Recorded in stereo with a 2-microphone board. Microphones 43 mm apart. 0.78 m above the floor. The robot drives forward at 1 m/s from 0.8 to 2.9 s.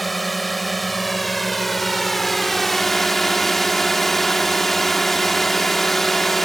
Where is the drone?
5° left (ahead or behind).